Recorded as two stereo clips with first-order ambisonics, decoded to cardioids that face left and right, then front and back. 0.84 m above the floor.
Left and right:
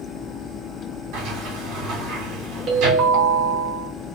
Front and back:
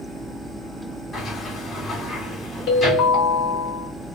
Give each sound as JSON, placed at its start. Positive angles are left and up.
{"t": 1.1, "sound": "a sliding door", "azimuth_deg": -70, "distance_m": 1.9}
{"t": 2.7, "sound": "a ringtone", "azimuth_deg": -45, "distance_m": 1.3}